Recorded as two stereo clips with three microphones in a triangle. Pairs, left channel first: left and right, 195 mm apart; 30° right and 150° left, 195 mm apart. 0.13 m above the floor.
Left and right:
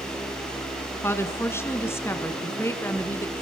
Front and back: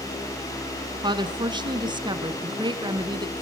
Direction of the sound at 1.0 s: 145° left.